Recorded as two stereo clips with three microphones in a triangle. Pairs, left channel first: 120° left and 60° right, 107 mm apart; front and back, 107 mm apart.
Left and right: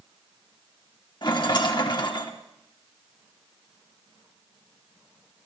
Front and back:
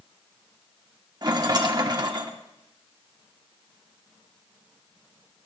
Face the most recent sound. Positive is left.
turn(degrees=150)